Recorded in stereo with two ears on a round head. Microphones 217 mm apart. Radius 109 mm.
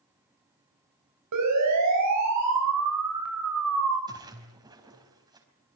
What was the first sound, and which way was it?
A siren, 75° right (ahead or behind).